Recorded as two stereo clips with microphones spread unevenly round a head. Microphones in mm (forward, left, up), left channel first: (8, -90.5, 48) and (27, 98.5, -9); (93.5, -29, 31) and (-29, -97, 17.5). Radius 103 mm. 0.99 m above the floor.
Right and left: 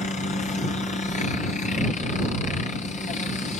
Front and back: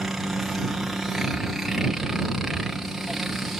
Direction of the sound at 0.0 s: 75° right.